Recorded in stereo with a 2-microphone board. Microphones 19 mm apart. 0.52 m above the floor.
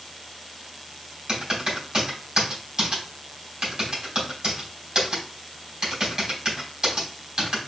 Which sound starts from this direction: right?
Typing on a keyboard, at 1.3 s.